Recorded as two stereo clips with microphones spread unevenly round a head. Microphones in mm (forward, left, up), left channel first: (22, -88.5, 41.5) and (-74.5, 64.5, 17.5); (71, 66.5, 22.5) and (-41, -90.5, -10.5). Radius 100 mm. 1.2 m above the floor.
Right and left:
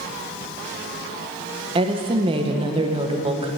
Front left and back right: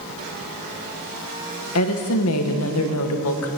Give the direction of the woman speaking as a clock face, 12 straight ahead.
10 o'clock.